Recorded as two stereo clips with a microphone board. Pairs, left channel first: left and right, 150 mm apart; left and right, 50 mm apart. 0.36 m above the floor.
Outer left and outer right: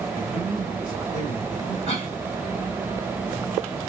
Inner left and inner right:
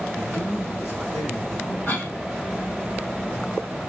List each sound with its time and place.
0.1 s a man speaking: 65° left (ahead or behind), 2 m
1.9 s a cough: 50° left (ahead or behind), 2 m